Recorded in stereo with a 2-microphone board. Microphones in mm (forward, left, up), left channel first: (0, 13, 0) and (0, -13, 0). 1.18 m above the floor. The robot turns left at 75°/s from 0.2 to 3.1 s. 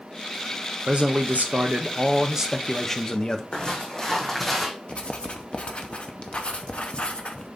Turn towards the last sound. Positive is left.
turn(degrees=50)  # may be behind; listen again after turning